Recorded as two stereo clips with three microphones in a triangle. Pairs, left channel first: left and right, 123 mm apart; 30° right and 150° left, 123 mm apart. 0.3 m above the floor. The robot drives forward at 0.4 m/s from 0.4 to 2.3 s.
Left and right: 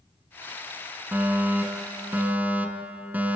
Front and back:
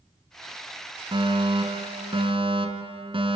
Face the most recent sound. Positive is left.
turn(degrees=-165)